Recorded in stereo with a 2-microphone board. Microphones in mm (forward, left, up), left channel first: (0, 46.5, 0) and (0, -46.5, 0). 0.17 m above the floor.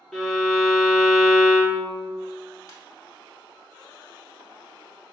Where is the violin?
Centre (ahead or behind), 0.7 m.